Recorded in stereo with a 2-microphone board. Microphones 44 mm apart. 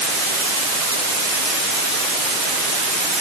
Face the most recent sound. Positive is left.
No sound to turn to.